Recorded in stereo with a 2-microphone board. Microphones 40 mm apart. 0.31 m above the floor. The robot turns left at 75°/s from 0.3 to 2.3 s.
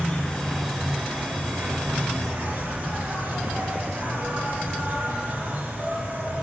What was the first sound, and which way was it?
An insect, 30° left.